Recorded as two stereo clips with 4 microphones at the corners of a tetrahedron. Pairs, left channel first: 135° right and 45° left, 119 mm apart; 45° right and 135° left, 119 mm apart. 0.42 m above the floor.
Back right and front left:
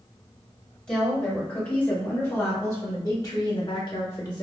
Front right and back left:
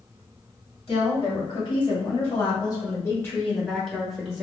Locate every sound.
0.9 s a woman speaking: 55° right, 1.9 m; by 4.4 s 150° right, 1.2 m